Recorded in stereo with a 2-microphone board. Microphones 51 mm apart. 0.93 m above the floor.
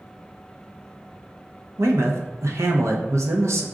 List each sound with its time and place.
1.8 s a man speaking: 70° right (ahead or behind), 0.7 m